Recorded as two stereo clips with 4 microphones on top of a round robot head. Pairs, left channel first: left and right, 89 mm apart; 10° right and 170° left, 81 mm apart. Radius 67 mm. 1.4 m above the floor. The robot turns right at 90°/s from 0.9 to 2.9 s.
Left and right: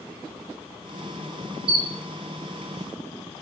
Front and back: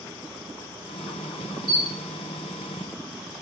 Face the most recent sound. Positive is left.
turn(degrees=25)